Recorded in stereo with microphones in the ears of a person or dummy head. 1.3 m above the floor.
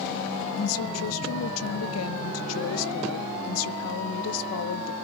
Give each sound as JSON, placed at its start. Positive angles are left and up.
{"t": 0.6, "sound": "a woman speaking", "side_deg": 80, "distance_m": 1.0}